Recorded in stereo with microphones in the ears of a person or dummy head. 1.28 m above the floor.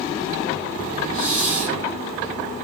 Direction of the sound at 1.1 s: 40° left (ahead or behind).